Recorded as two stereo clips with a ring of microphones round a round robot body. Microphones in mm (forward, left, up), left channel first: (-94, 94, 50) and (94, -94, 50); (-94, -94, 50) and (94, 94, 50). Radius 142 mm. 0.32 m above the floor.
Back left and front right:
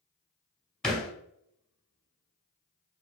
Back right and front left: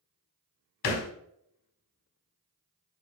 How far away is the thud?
About 0.7 m.